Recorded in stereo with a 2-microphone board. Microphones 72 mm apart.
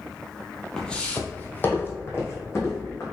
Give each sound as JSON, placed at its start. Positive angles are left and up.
{"t": 0.8, "sound": "footsteps", "side_deg": 10, "distance_m": 0.7}